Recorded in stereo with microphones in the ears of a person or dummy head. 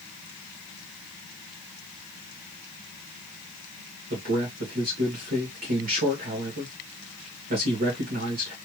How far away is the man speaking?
About 1.5 m.